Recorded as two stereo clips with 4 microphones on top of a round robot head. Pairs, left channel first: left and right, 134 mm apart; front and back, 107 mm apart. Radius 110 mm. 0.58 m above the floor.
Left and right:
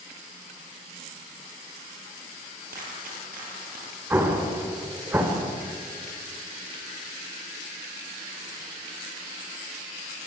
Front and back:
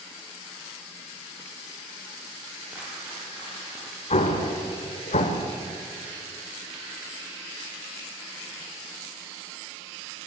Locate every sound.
2.7 s a dropped coin: 105° right, 8.5 m
4.1 s an explosion: 15° right, 2.5 m